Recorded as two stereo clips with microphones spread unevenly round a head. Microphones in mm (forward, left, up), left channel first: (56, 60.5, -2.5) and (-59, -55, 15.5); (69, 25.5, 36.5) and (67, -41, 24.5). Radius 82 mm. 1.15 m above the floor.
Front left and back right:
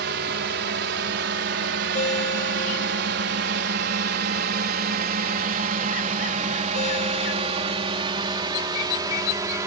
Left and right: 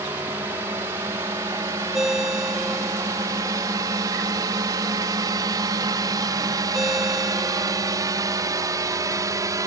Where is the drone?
155° right; by 9.7 s 65° right.